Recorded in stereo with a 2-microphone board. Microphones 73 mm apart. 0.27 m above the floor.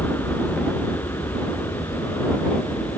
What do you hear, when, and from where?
0.0 s an aircraft: 40° left (ahead or behind); by 3.0 s 55° left (ahead or behind)